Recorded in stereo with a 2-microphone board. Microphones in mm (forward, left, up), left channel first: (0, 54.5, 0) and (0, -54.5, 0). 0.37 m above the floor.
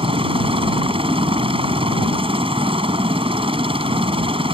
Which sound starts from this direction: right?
A helicopter, at 0.0 s.